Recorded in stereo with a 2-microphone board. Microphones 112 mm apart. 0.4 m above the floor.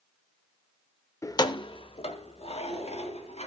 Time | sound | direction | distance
1.2 | keys jangling | 25° left (ahead or behind) | 0.5 m